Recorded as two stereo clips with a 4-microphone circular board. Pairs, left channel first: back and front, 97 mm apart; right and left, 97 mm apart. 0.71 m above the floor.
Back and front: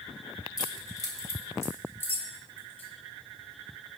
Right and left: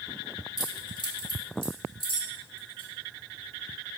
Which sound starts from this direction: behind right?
Keys jangling, at 0.6 s.